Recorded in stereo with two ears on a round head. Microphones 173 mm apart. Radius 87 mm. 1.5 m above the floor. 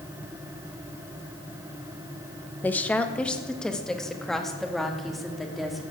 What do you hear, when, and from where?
2.6 s a woman speaking: 10° left (ahead or behind), 1.2 m; by 5.8 s centre (ahead or behind), 3 m